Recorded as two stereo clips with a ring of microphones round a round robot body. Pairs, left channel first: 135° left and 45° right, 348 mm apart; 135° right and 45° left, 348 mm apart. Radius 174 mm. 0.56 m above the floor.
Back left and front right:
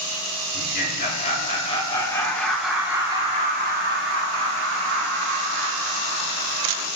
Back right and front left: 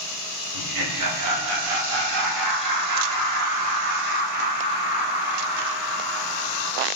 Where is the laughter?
75° left, 3 m; by 6.9 s 55° right, 3 m.